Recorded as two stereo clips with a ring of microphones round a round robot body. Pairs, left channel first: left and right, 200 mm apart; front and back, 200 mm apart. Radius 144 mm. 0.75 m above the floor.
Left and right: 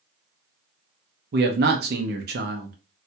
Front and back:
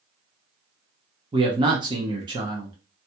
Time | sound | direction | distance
1.3 | a man speaking | 115° right | 0.7 m